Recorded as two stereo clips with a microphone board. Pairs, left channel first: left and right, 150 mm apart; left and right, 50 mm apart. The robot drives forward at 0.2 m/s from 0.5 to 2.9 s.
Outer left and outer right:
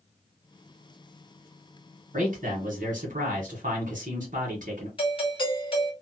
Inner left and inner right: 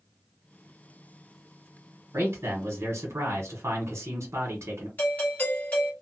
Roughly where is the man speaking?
Right.